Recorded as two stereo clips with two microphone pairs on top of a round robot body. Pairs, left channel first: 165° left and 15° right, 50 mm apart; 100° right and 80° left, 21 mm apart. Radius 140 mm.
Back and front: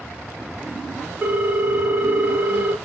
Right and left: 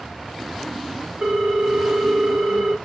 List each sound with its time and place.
1.2 s a ringtone: 50° left, 0.6 m